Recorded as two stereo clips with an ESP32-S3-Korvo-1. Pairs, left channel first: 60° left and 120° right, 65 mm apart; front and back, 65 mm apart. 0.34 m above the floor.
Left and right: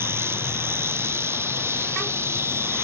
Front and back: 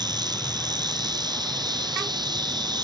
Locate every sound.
0.0 s an insect: 175° right, 1.9 m